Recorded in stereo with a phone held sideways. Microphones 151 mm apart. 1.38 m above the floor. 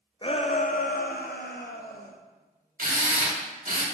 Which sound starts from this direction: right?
A drill, at 2.8 s.